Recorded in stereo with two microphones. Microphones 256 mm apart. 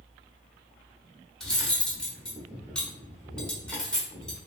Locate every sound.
1.4 s cutlery clinking: 5° left (ahead or behind), 0.9 m